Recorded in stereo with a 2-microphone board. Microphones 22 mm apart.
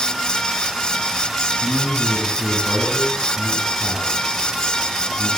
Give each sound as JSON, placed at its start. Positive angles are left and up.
{"t": 1.6, "sound": "a man speaking", "side_deg": -45, "distance_m": 9.5}